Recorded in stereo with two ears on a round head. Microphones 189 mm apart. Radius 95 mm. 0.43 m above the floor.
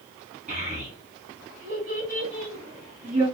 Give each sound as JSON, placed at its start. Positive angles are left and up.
{"t": 0.5, "sound": "a child speaking", "side_deg": -30, "distance_m": 3.0}